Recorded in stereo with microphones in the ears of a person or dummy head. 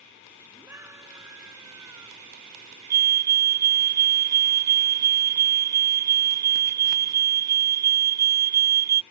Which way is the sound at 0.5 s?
10° right (ahead or behind).